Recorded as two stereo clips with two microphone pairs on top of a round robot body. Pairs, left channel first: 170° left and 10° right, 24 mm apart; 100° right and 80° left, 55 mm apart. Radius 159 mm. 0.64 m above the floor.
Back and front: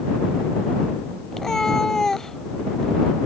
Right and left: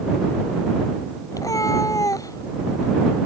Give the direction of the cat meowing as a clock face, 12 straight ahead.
4 o'clock.